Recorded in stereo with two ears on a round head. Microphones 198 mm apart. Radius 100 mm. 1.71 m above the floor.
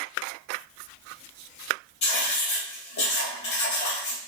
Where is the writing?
50° left (ahead or behind), 1.0 m.